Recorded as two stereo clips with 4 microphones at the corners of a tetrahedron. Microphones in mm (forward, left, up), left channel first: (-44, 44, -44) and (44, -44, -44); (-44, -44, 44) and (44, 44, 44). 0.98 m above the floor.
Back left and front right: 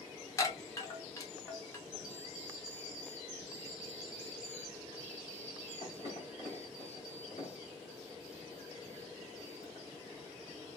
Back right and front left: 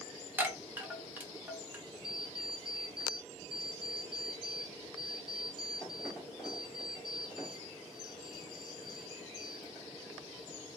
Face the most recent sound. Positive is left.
turn(degrees=130)